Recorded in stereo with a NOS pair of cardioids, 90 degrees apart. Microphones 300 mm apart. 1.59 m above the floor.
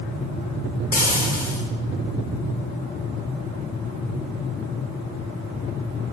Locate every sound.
0.9 s frying: 30° left, 0.8 m